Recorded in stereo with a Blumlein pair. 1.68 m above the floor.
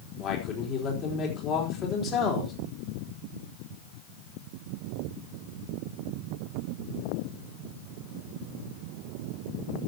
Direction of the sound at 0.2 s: 30° left.